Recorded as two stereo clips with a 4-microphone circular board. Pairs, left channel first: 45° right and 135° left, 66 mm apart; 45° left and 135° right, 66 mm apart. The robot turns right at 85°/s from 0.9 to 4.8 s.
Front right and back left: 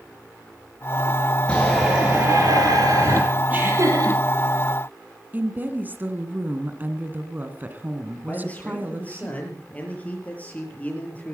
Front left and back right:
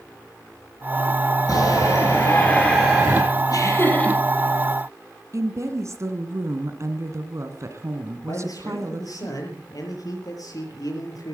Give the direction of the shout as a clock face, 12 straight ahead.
11 o'clock.